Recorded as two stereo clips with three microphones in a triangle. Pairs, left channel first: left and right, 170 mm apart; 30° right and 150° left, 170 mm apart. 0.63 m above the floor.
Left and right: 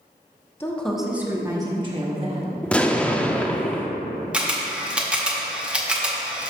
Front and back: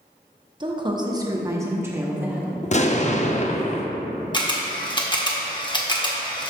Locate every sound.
0.6 s a woman speaking: 150° left, 0.8 m; by 2.5 s 130° right, 1.4 m
2.6 s an explosion: 5° left, 0.5 m
4.3 s a camera shutter: 15° right, 0.9 m